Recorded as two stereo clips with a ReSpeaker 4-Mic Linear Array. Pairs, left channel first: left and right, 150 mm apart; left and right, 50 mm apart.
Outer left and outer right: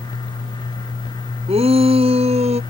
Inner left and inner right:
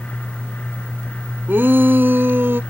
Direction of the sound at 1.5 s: 45° right (ahead or behind).